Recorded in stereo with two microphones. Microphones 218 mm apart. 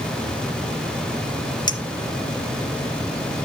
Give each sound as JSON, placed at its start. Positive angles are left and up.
{"t": 1.7, "sound": "a clink", "side_deg": 20, "distance_m": 1.3}